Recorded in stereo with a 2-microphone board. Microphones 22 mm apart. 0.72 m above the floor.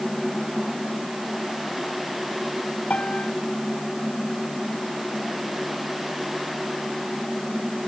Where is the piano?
75° left (ahead or behind).